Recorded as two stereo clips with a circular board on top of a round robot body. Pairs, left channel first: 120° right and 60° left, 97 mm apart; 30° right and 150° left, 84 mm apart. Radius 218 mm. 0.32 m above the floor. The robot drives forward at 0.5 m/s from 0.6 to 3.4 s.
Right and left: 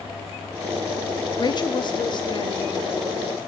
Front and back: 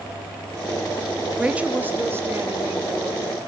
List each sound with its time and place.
1.4 s a woman speaking: 135° right, 1.1 m; by 3.4 s 165° right, 1.8 m